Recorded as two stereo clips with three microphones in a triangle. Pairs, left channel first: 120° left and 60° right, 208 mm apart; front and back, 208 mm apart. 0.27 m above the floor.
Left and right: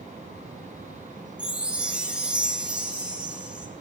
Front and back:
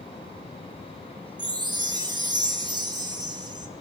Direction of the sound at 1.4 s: 140° right.